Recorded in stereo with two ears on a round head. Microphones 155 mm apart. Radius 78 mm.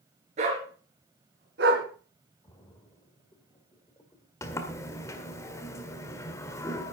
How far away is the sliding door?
About 1.7 m.